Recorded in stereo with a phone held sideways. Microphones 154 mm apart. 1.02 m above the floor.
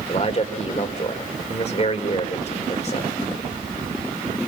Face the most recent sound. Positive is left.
turn(degrees=45)  # may be behind; listen again after turning